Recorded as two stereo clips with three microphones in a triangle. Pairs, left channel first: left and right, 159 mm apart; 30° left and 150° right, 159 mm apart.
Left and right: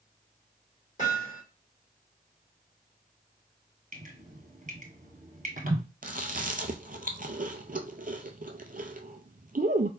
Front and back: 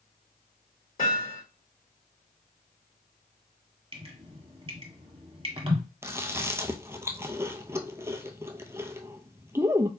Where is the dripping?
100° right, 1.6 m.